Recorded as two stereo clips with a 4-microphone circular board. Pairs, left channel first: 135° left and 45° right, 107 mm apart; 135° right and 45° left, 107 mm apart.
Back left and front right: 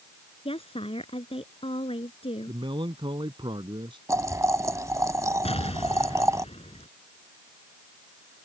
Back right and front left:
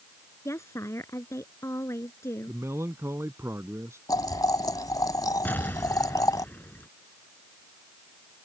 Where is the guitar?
No guitar in this recording.